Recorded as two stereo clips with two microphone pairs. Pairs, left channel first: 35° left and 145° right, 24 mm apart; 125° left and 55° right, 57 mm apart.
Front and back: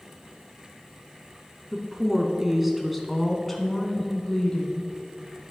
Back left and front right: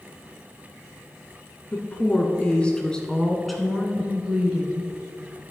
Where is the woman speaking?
155° left, 1.5 m; by 5.5 s 10° right, 1.6 m.